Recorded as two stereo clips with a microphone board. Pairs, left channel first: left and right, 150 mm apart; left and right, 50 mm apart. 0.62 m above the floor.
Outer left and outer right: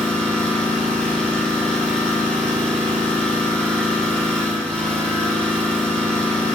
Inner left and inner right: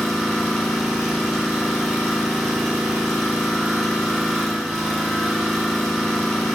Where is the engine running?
5° left (ahead or behind), 5 m.